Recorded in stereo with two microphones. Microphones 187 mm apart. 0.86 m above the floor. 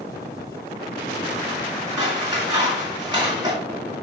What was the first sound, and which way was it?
Scissors, 25° right (ahead or behind).